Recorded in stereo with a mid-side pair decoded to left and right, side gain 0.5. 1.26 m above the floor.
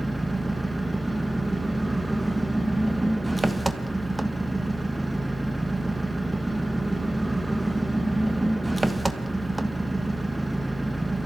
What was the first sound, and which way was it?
An engine running, 15° right.